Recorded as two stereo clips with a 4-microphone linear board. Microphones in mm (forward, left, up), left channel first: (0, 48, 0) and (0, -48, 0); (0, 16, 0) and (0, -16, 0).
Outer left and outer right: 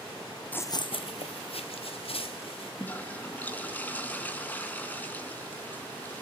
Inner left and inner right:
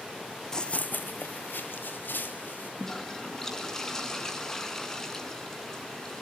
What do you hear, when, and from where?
0.5 s running footsteps: 15° left (ahead or behind), 0.6 m; by 2.7 s 75° left (ahead or behind), 3.5 m
2.8 s a toilet flushing: 20° left (ahead or behind), 2.5 m